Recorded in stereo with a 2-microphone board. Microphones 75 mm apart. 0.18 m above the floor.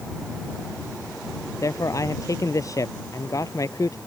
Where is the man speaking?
45° left (ahead or behind).